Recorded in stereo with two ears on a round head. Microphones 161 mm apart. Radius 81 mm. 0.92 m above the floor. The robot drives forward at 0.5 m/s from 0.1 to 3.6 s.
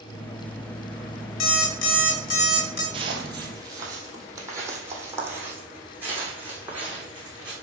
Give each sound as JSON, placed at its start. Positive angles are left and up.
{"t": 1.4, "sound": "an alarm clock", "side_deg": 85, "distance_m": 1.8}
{"t": 2.9, "sound": "footsteps", "side_deg": -30, "distance_m": 1.5}